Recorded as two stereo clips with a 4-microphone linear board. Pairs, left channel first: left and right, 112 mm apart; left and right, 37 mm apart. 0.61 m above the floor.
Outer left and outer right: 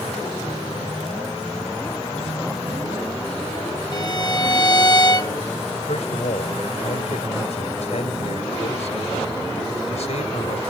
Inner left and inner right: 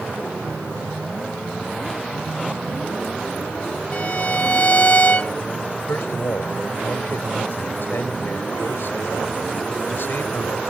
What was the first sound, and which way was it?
A violin, 35° left (ahead or behind).